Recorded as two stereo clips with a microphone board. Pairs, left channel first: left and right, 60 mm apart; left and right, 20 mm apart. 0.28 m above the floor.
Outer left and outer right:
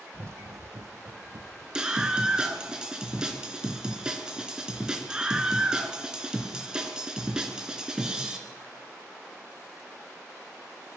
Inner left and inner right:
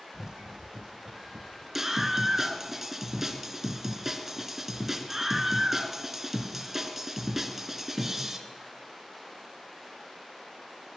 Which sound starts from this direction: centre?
A scream, at 1.8 s.